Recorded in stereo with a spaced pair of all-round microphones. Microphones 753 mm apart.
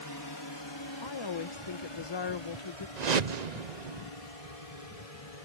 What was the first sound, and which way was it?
A drone, 30° left (ahead or behind).